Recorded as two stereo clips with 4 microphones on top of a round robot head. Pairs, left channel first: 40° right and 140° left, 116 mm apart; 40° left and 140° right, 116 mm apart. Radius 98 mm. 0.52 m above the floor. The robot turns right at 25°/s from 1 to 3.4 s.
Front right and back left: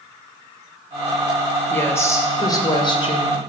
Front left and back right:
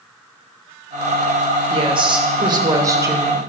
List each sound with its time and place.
1.7 s a woman speaking: 110° right, 2 m; by 3.4 s 70° right, 2 m